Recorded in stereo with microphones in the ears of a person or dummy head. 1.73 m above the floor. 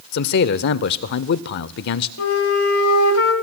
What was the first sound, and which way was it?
A man speaking, 60° left (ahead or behind).